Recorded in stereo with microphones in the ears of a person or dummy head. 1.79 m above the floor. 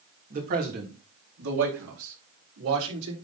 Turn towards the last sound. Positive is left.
turn(degrees=-85)